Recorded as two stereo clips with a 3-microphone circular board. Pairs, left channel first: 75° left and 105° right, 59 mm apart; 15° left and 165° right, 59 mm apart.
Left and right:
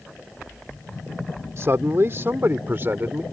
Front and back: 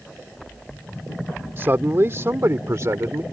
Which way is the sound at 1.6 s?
125° right.